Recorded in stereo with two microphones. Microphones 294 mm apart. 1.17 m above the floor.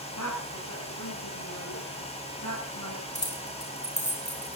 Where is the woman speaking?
85° left, 8.5 m; by 3.0 s 75° left (ahead or behind), 7.5 m.